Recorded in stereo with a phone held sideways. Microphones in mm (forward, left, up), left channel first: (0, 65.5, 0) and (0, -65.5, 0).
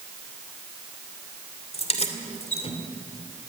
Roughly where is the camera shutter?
No camera shutter in this recording.